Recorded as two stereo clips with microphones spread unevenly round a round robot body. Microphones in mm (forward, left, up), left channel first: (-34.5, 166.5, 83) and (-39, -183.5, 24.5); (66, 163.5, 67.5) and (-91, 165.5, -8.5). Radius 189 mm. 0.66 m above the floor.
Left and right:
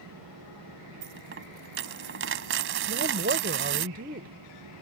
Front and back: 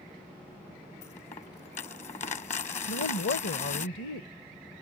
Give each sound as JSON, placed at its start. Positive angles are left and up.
{"t": 1.0, "sound": "a dropped coin", "azimuth_deg": -30}
{"t": 2.9, "sound": "a woman speaking", "azimuth_deg": -25}